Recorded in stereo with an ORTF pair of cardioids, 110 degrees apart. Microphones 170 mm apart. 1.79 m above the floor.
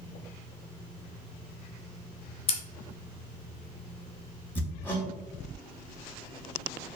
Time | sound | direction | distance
2.5 | scissors | 35° left | 1.0 m
4.5 | hammering | 15° left | 1.9 m